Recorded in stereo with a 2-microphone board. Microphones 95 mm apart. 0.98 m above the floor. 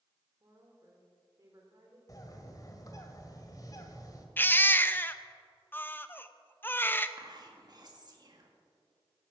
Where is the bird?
40° left (ahead or behind), 1.7 m.